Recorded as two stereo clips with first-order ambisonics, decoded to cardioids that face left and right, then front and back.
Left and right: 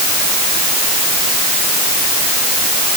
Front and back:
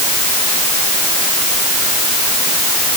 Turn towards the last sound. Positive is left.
No sound to turn to.